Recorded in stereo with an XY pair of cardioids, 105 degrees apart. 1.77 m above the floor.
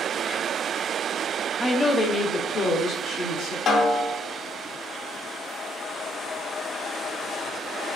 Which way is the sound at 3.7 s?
60° left.